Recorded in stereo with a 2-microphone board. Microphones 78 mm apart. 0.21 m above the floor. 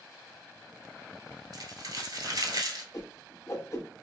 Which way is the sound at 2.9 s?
40° left (ahead or behind).